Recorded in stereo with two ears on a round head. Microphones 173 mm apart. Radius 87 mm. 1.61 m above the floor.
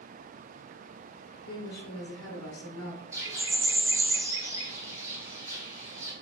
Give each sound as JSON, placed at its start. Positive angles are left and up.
{"t": 1.5, "sound": "a woman speaking", "side_deg": 80, "distance_m": 1.3}
{"t": 3.1, "sound": "a bird", "side_deg": -15, "distance_m": 1.1}